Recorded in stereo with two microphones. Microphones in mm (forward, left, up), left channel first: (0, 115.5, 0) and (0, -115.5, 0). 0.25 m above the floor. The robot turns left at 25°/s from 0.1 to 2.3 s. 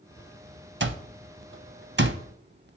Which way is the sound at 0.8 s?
55° right (ahead or behind).